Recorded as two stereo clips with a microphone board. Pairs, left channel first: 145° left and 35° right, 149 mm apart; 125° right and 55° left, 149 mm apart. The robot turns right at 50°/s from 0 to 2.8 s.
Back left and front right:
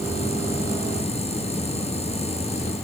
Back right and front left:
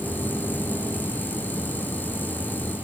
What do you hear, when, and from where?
Only background noise.